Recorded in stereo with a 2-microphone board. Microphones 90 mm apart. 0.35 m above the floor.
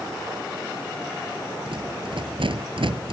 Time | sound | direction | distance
1.7 | a rattle | 80° right | ?